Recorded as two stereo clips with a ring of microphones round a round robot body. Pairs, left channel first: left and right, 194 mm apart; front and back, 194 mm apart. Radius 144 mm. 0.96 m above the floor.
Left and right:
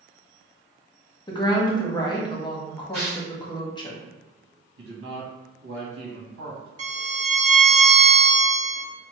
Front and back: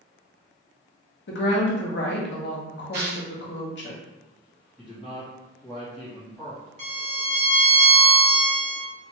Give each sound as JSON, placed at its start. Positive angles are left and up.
{"t": 1.3, "sound": "a woman speaking", "azimuth_deg": 20, "distance_m": 1.0}
{"t": 2.9, "sound": "tearing paper", "azimuth_deg": 145, "distance_m": 1.0}
{"t": 4.8, "sound": "a man speaking", "azimuth_deg": -90, "distance_m": 1.1}
{"t": 6.8, "sound": "a violin", "azimuth_deg": -135, "distance_m": 0.8}